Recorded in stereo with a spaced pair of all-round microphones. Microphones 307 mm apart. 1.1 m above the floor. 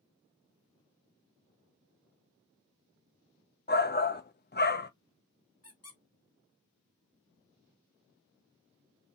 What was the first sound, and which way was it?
A shout, 35° left (ahead or behind).